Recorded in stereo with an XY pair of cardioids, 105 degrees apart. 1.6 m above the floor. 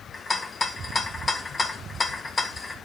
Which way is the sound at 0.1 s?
25° left.